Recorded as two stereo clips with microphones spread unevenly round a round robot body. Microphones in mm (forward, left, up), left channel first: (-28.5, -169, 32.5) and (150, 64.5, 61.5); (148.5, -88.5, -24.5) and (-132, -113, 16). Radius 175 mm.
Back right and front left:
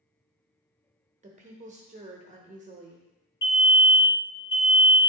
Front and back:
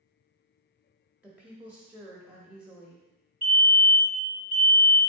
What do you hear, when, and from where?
1.2 s a woman speaking: 85° left, 0.9 m
3.4 s a fire alarm: 130° right, 2.5 m